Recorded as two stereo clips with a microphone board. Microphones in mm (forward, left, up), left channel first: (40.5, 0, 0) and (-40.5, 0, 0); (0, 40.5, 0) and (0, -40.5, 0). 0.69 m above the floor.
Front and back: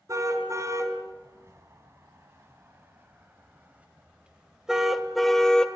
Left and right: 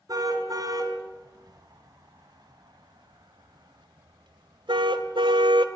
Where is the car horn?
130° right, 4 m; by 5.7 s 80° right, 1.7 m.